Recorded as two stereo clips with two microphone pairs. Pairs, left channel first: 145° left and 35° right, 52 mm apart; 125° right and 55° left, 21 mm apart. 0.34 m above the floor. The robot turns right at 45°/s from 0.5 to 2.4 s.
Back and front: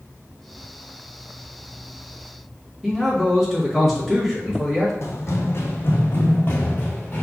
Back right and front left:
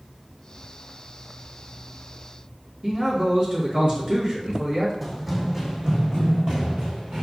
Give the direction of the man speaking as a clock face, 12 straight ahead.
10 o'clock.